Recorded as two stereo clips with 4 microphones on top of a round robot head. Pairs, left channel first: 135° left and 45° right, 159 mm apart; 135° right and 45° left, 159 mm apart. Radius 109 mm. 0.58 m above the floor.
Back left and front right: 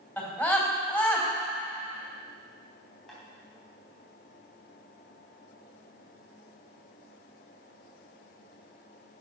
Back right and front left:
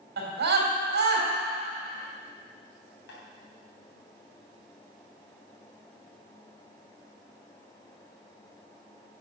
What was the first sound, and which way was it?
A scream, 55° left.